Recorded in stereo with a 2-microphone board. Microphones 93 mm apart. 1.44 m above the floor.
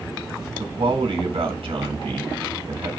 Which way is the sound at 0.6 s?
85° right.